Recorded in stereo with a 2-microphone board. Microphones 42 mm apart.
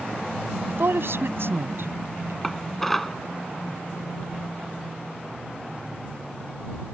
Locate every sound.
0.7 s a woman speaking: 65° right (ahead or behind)
2.4 s dishes clattering: 10° left (ahead or behind)